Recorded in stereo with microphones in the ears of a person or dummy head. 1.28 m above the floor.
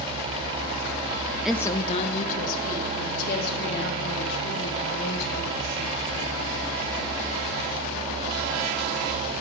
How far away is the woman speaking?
About 0.5 m.